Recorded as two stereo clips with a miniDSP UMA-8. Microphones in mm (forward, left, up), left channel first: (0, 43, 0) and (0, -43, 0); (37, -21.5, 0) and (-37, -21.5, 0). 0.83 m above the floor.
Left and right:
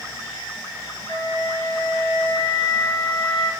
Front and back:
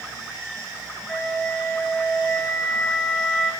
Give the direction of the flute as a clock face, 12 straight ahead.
9 o'clock.